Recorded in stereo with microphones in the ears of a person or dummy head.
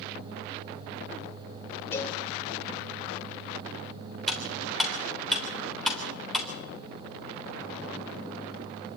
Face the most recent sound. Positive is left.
turn(degrees=5)  # may be behind; listen again after turning